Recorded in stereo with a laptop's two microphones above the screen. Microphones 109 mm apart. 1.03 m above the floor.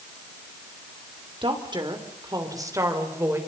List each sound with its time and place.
1.4 s a woman speaking: 50° right (ahead or behind), 3.5 m; by 3.4 s 25° right (ahead or behind), 4 m